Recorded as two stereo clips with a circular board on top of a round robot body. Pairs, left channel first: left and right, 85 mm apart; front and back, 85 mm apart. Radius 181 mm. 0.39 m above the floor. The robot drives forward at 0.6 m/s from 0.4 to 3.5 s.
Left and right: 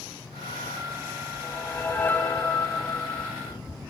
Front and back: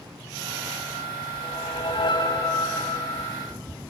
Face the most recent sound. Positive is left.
turn(degrees=30)